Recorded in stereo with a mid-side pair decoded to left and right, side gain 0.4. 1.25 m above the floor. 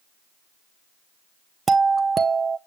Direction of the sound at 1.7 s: 40° right.